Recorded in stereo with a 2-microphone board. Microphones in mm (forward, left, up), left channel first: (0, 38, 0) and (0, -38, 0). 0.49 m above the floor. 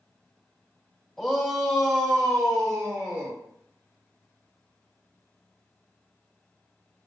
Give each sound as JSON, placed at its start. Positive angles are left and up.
{"t": 1.2, "sound": "a shout", "side_deg": 5, "distance_m": 1.1}